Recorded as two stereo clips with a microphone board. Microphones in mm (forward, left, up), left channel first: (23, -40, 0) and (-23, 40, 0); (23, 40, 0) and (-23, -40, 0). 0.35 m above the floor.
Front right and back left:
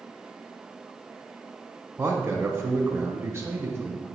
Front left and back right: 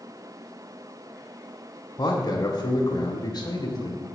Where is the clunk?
I don't hear a clunk.